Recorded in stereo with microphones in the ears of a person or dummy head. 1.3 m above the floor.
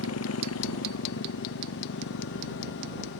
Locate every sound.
0.0 s a motorcycle: 85° left; by 3.2 s 65° left (ahead or behind)